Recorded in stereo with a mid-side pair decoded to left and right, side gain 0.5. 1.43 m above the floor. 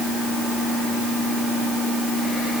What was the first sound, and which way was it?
Only background noise.